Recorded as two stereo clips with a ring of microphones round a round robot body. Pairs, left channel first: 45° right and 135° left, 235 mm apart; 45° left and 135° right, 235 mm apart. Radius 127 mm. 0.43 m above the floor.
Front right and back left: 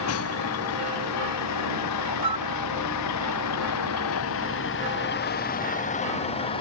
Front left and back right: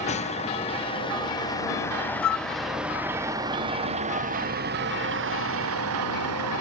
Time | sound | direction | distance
0.0 | a vehicle | 20° right | ?
2.2 | a flute | 65° left | ?